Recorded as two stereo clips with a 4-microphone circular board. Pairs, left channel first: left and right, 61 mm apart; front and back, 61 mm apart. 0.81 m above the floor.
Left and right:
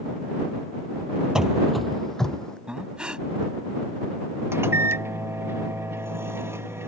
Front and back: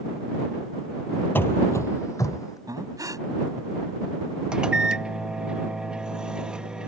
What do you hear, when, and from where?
1.4 s running footsteps: 15° right; by 2.6 s 15° left
2.7 s breathing: 165° right
4.5 s a microwave: 110° right